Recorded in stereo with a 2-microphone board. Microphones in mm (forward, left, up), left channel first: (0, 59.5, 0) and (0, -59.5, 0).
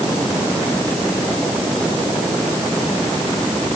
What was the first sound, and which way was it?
Only background noise.